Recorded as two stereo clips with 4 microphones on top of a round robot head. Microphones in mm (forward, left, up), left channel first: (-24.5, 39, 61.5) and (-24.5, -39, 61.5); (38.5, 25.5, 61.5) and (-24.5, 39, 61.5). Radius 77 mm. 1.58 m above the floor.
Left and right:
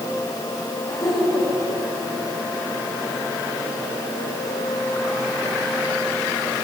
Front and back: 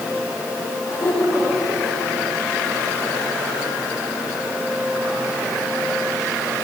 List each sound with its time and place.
0.9 s laughter: 45° left, 7.5 m